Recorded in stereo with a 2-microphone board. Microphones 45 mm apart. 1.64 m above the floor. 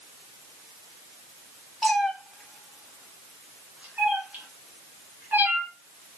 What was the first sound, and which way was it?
A cat meowing, 5° left (ahead or behind).